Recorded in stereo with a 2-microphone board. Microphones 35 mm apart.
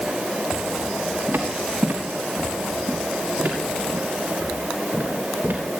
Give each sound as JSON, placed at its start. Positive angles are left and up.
{"t": 1.3, "sound": "footsteps", "side_deg": -75, "distance_m": 3.5}